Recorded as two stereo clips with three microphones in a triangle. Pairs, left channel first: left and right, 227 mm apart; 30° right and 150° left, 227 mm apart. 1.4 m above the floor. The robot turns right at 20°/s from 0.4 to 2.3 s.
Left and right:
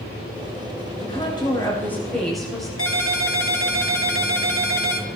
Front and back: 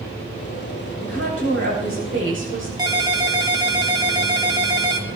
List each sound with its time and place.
1.0 s a woman speaking: 155° left, 8 m; by 2.7 s straight behind, 8 m
2.8 s a ringtone: 80° left, 1.8 m